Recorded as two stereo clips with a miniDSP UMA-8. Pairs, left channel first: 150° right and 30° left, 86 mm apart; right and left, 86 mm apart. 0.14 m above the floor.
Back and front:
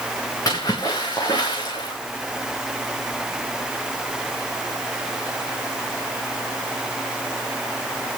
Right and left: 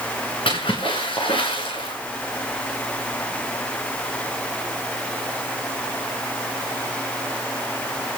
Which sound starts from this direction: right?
A splash, at 0.5 s.